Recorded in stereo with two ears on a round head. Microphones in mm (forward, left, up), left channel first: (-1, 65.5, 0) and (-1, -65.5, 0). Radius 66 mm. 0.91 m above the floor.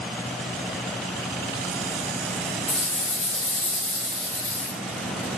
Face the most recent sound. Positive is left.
turn(degrees=15)  # may be behind; listen again after turning